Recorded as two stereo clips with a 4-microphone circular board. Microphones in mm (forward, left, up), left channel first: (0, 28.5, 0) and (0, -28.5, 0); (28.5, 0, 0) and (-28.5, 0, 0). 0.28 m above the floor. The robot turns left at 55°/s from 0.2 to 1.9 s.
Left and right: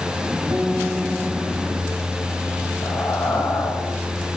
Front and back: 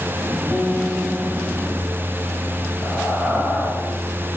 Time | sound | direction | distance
0.5 | a guitar | 95° right | 2.5 m
2.8 | breathing | 120° left | 7.5 m